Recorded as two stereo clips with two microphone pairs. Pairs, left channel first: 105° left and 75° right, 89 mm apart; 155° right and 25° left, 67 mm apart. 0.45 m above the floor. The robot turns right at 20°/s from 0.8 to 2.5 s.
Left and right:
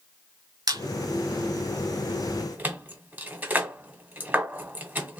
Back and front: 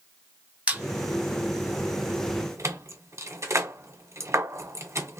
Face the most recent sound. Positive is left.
turn(degrees=-5)